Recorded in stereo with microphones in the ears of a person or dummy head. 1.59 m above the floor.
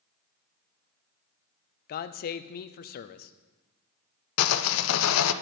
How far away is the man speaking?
About 0.5 m.